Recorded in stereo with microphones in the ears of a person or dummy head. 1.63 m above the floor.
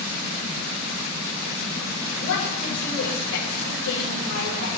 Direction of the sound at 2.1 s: 65° left (ahead or behind).